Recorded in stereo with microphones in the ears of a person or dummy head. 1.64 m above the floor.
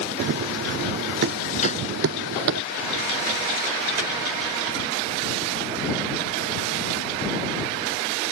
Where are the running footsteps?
60° right (ahead or behind).